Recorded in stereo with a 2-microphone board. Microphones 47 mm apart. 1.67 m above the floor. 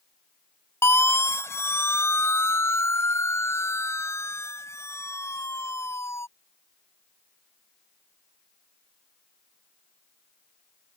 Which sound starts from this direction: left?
A siren, at 0.8 s.